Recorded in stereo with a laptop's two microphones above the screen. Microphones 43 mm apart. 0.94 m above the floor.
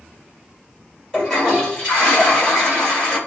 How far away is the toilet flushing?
About 1.7 m.